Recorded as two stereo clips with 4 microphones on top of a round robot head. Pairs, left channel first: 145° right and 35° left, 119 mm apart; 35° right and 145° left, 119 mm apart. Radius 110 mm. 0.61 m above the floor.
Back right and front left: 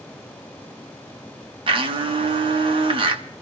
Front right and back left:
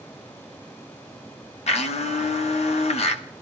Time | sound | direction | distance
1.7 | a blender | 10° right | 1.2 m